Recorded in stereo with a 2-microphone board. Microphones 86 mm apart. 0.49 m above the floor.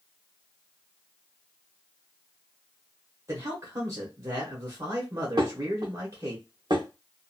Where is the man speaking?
40° right (ahead or behind), 1.0 m.